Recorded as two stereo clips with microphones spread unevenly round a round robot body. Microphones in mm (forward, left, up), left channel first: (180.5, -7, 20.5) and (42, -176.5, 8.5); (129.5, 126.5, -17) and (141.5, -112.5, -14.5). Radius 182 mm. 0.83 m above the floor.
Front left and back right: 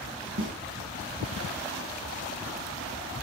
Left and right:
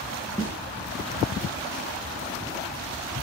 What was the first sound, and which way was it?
A snare drum, 175° left.